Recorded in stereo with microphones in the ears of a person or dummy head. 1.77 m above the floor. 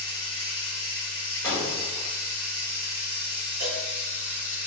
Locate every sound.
0.0 s running water: 25° left (ahead or behind), 1.7 m
1.4 s breaking glass: 15° left (ahead or behind), 1.2 m
3.6 s a cowbell: 45° right (ahead or behind), 0.7 m